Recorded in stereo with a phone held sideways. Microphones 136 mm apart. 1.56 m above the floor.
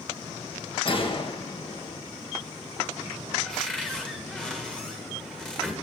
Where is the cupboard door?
5° left (ahead or behind), 1.8 m.